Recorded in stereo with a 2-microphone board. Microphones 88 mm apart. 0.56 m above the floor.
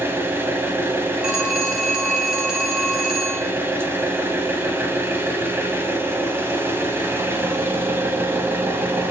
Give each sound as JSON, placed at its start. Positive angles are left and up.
{"t": 0.0, "sound": "an engine running", "side_deg": -30, "distance_m": 1.0}
{"t": 1.2, "sound": "a phone ringing", "side_deg": -10, "distance_m": 1.5}